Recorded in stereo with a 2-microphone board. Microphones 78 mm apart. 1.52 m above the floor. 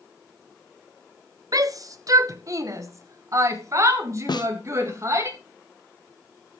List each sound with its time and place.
1.5 s a shout: 50° right (ahead or behind), 1.1 m; by 5.3 s 40° right (ahead or behind), 3 m
4.3 s a snare drum: 70° left (ahead or behind), 0.6 m